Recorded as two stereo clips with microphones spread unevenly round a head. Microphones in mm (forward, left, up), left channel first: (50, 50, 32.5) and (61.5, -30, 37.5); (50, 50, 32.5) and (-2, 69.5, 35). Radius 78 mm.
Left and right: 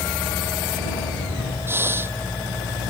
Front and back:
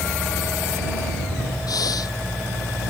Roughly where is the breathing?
Ahead right.